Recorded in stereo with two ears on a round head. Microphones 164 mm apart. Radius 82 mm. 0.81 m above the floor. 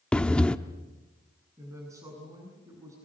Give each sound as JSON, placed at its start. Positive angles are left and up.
{"t": 0.1, "sound": "breathing", "side_deg": 5, "distance_m": 0.8}
{"t": 1.6, "sound": "a woman speaking", "side_deg": -20, "distance_m": 7.0}